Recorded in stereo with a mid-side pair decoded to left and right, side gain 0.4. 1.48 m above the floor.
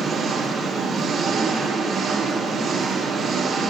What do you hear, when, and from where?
0.0 s an engine running: 60° right, 3 m